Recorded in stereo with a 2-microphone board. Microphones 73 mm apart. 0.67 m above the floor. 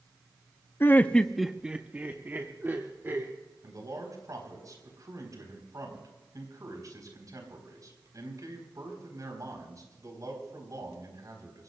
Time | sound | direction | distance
0.8 | laughter | 30° left (ahead or behind) | 0.6 m
3.6 | a man speaking | 55° right (ahead or behind) | 4 m